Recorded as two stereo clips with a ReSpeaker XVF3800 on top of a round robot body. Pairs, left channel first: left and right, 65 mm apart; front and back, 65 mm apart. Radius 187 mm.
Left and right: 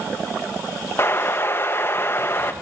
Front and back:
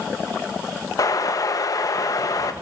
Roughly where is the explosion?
Ahead left.